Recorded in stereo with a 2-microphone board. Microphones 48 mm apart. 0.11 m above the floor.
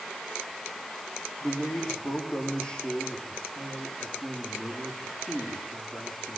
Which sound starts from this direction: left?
A man speaking, at 1.4 s.